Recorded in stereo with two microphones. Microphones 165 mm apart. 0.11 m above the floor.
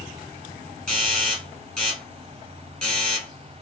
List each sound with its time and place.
0.9 s a doorbell: 5° left (ahead or behind), 2 m